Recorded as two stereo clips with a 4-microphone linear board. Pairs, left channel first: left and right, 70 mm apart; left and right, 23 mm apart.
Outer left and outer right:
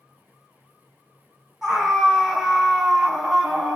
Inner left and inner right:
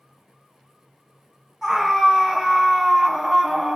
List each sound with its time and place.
1.6 s a scream: 5° right (ahead or behind), 1.8 m